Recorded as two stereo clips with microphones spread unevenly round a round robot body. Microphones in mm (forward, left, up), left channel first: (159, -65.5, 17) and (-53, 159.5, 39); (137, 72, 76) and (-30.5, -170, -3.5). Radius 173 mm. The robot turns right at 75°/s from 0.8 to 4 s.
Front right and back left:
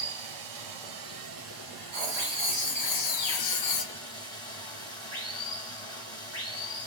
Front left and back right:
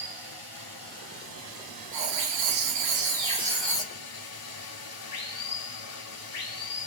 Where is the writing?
155° right, 1.1 m; by 3.9 s 5° right, 1.1 m.